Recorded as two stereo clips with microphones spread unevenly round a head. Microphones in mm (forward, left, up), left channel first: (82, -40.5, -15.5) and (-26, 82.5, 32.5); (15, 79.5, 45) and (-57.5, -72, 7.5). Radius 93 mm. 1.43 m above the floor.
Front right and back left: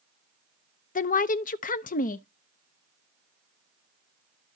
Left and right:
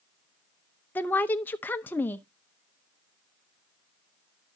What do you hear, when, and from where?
0.9 s a woman speaking: 20° right, 0.6 m